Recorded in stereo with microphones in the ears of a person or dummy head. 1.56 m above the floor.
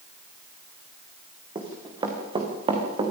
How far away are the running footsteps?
About 4.5 m.